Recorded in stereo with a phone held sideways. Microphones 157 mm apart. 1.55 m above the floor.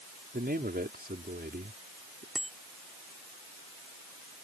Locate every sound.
0.3 s a man speaking: 90° right
2.4 s a bicycle bell: 5° left (ahead or behind)